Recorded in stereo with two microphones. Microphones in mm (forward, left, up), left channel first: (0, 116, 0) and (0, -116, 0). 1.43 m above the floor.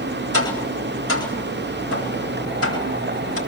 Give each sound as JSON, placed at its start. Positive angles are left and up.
{"t": 0.3, "sound": "tapping", "side_deg": 80, "distance_m": 10.0}